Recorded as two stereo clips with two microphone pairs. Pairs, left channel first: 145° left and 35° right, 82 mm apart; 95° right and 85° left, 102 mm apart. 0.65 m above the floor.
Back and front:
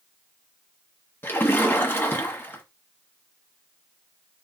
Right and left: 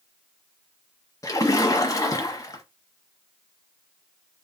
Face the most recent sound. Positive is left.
turn(degrees=-150)